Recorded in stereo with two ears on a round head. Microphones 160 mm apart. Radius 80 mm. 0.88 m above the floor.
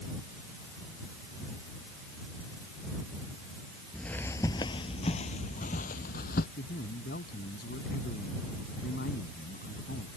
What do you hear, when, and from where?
3.9 s footsteps: 5° left (ahead or behind); by 6.5 s 55° left (ahead or behind)
6.6 s a man speaking: 55° left (ahead or behind)